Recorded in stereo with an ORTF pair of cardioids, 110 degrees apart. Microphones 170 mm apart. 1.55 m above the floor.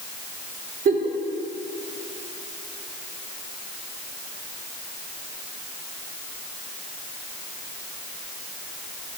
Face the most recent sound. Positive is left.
turn(degrees=-55)